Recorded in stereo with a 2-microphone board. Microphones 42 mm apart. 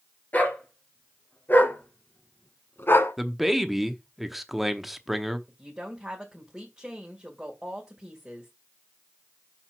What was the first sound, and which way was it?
A dog barking, 40° left (ahead or behind).